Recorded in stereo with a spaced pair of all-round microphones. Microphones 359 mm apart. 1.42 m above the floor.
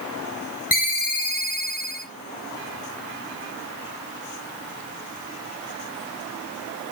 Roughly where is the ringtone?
Left.